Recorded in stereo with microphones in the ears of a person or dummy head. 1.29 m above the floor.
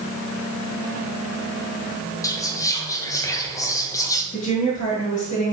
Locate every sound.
2.2 s whispering: 15° left (ahead or behind), 0.8 m
4.3 s a woman speaking: 35° left (ahead or behind), 1.8 m